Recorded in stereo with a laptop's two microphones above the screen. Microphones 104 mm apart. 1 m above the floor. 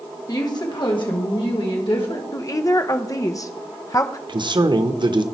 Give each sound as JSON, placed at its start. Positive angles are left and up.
{"t": 0.3, "sound": "a woman speaking", "side_deg": 35, "distance_m": 1.2}
{"t": 2.3, "sound": "a woman speaking", "side_deg": 35, "distance_m": 0.5}
{"t": 4.3, "sound": "a man speaking", "side_deg": -50, "distance_m": 0.9}